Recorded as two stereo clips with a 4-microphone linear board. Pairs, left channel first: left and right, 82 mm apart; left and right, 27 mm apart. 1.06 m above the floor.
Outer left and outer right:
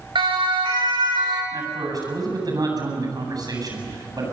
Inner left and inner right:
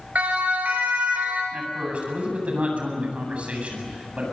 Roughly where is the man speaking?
Right.